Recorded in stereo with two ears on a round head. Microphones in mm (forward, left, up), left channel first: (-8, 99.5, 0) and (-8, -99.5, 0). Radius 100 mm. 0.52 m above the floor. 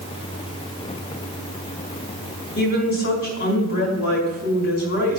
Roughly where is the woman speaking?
Left.